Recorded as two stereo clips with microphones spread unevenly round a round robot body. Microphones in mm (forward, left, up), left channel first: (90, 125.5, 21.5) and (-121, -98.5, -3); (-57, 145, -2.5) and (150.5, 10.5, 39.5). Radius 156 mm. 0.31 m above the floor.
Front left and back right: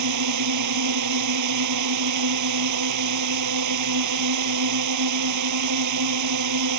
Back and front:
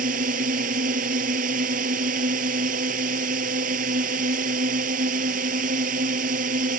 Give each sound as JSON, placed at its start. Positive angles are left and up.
{"t": 0.0, "sound": "a drone", "azimuth_deg": -100}